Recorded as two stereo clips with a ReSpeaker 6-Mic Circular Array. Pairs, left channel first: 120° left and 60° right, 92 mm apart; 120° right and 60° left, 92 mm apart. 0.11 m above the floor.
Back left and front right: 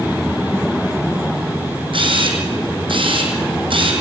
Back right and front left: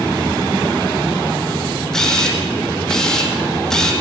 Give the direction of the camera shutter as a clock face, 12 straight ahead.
1 o'clock.